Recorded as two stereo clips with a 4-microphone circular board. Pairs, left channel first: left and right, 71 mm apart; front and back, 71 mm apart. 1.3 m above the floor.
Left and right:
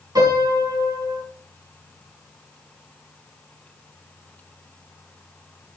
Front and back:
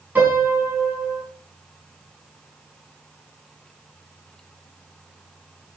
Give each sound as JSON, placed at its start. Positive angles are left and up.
{"t": 0.1, "sound": "a piano", "azimuth_deg": -115, "distance_m": 4.5}